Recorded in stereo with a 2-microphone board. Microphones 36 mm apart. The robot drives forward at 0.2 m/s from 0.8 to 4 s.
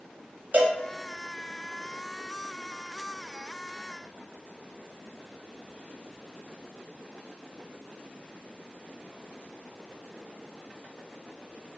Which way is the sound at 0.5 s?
55° right (ahead or behind).